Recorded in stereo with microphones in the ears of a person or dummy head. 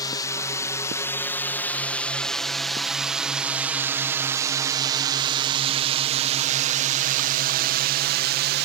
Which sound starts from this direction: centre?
A drone, at 0.0 s.